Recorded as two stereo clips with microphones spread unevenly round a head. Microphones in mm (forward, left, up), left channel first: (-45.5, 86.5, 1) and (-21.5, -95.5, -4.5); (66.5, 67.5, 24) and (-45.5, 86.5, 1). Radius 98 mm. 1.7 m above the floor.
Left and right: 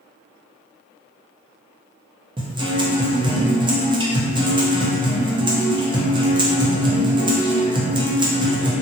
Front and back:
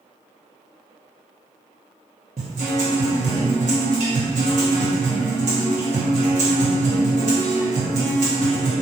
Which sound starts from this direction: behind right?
A guitar, at 2.4 s.